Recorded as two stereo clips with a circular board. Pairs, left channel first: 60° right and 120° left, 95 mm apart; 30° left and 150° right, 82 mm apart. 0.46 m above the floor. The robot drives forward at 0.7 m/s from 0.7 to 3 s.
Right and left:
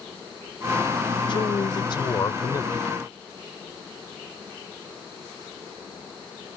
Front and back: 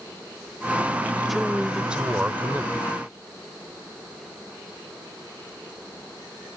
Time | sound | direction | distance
1.3 | a man speaking | 60° right | ?